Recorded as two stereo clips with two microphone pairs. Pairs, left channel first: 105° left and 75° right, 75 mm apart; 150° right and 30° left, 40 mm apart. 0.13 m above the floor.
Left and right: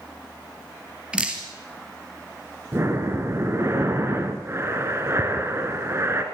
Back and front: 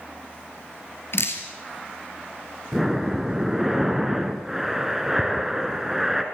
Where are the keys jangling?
No keys jangling in this recording.